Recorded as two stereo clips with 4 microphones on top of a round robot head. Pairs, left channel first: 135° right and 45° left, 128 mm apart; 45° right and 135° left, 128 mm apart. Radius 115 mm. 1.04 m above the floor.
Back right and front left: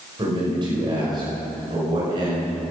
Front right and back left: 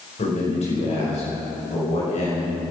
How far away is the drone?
I don't hear a drone.